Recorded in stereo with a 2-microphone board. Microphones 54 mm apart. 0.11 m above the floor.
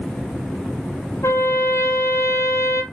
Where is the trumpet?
70° left (ahead or behind), 0.9 m.